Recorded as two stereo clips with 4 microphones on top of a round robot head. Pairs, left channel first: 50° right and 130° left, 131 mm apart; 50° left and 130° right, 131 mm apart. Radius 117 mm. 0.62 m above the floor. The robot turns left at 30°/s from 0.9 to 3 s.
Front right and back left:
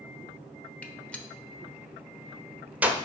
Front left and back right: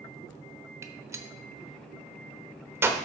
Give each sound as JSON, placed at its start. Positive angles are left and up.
{"t": 0.8, "sound": "a gunshot", "azimuth_deg": -110, "distance_m": 1.0}